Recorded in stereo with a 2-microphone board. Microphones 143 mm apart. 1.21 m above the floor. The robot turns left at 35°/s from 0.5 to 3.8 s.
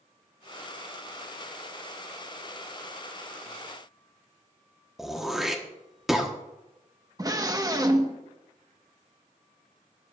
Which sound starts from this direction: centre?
Throat clearing, at 5.0 s.